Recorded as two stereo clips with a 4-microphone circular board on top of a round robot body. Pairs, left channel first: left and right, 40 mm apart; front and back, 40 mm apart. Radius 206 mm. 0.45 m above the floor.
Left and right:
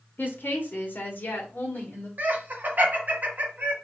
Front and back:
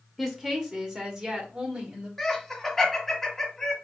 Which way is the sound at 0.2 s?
100° left.